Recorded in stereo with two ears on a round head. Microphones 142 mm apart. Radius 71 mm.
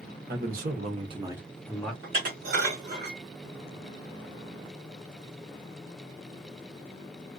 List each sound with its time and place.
0.3 s a man speaking: 65° right (ahead or behind), 0.9 m; by 1.9 s 10° left (ahead or behind), 0.9 m
2.0 s dishes clattering: 60° right (ahead or behind), 1.3 m